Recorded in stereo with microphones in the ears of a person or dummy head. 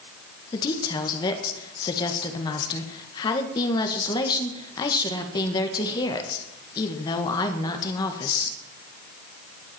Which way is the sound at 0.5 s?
25° left (ahead or behind).